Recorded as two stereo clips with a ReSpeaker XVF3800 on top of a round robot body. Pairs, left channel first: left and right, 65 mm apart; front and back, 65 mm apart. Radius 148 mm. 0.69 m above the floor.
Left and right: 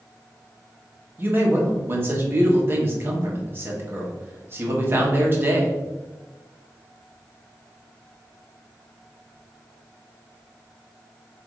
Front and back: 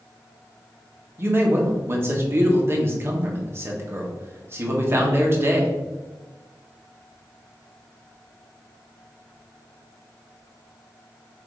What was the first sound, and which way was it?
A man speaking, 135° right.